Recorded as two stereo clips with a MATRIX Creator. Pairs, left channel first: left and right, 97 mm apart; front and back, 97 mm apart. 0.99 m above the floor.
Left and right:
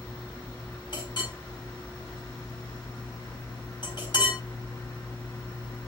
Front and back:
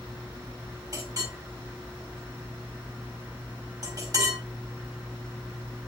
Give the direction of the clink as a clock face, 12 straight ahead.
8 o'clock.